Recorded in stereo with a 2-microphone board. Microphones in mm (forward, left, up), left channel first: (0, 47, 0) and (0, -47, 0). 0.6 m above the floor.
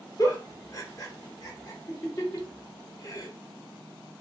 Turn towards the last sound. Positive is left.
turn(degrees=35)  # may be behind; listen again after turning